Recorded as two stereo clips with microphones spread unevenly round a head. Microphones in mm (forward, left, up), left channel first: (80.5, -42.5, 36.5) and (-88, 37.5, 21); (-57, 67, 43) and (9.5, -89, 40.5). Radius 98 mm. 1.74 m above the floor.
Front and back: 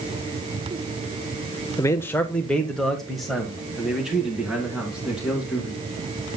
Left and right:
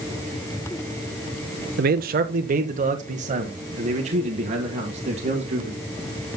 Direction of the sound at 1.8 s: 95° right.